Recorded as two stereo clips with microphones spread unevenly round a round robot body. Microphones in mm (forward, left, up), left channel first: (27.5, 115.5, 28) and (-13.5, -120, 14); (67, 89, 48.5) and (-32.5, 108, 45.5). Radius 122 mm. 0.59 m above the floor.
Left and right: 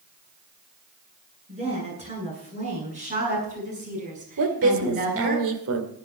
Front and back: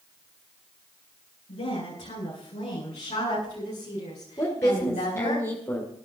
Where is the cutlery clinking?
No cutlery clinking in this recording.